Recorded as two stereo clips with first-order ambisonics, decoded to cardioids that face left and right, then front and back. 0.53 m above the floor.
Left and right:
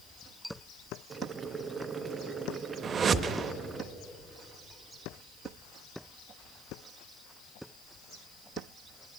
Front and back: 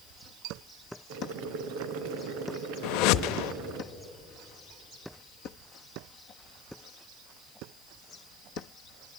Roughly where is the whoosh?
Ahead right.